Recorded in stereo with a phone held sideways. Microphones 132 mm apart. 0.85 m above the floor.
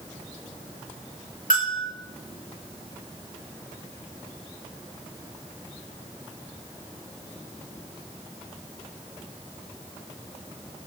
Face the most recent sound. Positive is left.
turn(degrees=70)  # may be behind; listen again after turning